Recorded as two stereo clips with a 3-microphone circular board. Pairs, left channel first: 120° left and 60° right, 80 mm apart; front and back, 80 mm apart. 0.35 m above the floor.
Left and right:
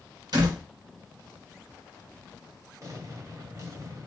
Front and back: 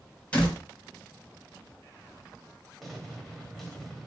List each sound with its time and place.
0.3 s a door slam: 75° right, 1.8 m
2.8 s an explosion: 90° right, 1.0 m